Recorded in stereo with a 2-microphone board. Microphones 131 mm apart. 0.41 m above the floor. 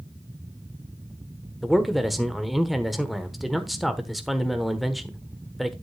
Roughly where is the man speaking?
Centre.